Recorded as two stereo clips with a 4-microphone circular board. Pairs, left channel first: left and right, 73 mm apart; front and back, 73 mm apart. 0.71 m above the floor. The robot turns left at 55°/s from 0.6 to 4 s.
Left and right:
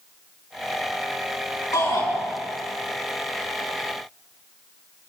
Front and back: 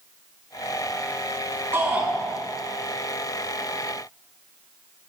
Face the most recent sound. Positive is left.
turn(degrees=0)